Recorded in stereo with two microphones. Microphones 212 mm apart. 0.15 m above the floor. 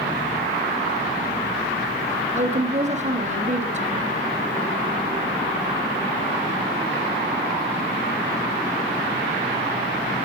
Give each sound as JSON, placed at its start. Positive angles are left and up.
{"t": 2.3, "sound": "a woman speaking", "side_deg": -35, "distance_m": 3.0}